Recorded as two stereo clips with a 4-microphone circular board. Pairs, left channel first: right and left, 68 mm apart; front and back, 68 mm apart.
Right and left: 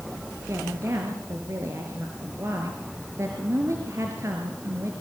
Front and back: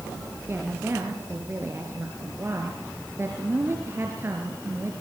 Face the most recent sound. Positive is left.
turn(degrees=130)